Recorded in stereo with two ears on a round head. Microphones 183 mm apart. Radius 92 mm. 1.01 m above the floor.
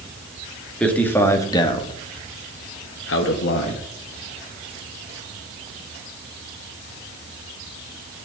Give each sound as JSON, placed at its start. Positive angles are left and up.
{"t": 0.8, "sound": "a man speaking", "side_deg": 5, "distance_m": 2.5}